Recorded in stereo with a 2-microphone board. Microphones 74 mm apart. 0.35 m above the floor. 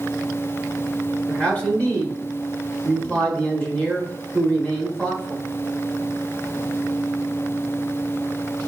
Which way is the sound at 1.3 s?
15° left (ahead or behind).